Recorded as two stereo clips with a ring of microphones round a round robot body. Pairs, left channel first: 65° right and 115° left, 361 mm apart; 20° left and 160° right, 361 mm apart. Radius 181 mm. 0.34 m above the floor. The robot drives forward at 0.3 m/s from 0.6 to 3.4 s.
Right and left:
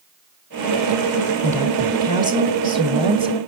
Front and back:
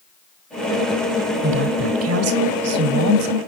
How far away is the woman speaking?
About 1.4 m.